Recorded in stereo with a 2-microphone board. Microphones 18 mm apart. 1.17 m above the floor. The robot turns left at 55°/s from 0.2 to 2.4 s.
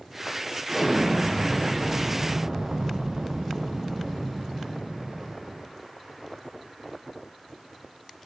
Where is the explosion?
10° right, 0.7 m; by 5.7 s 105° right, 0.7 m.